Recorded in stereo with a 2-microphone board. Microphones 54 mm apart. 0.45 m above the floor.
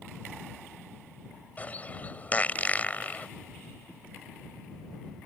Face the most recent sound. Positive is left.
turn(degrees=30)  # may be behind; listen again after turning